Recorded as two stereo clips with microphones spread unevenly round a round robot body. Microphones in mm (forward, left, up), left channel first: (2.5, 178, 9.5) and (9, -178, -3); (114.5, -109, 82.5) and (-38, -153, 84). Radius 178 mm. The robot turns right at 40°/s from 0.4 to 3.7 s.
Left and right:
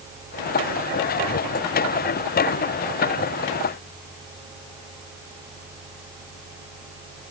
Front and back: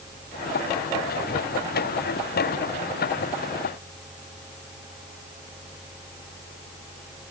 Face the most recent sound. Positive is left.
No sound to turn to.